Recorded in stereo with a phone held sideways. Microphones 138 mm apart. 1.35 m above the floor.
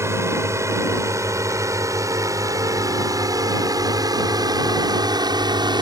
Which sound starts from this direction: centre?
A drone, at 0.0 s.